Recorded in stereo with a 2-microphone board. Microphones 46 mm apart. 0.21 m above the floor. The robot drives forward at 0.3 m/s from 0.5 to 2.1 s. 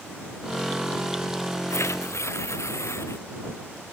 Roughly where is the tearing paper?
Left.